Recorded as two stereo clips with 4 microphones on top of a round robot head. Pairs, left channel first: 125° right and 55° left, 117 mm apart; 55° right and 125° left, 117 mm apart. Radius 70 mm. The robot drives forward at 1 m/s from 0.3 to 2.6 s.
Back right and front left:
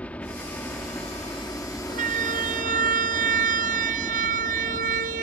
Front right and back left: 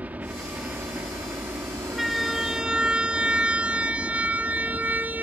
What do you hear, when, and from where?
0.0 s a helicopter: straight behind
1.9 s a siren: 35° left; by 5.2 s 45° left